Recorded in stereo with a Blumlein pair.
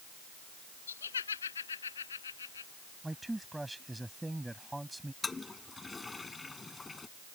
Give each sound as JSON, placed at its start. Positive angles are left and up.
{"t": 0.9, "sound": "laughter", "azimuth_deg": 70}
{"t": 3.0, "sound": "a man speaking", "azimuth_deg": -5}
{"t": 5.2, "sound": "a toilet flushing", "azimuth_deg": 10}